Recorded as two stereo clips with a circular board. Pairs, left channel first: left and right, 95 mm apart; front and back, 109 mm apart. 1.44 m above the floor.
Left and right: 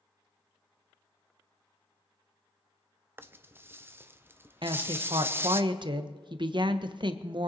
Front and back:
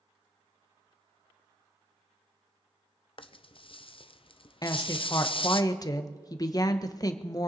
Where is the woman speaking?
55° right, 1.2 m.